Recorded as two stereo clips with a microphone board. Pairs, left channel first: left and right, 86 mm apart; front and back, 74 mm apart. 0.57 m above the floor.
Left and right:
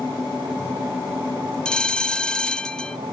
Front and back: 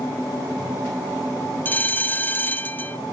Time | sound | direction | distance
1.6 | a bell | 20° left | 0.5 m